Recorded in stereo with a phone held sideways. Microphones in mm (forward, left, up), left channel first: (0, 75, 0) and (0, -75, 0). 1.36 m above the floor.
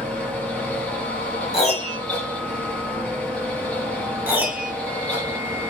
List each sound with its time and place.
0.0 s a fan: 10° left (ahead or behind), 1.1 m
1.5 s a piano: 45° left (ahead or behind), 1.2 m
4.3 s a piano: 10° right (ahead or behind), 1.4 m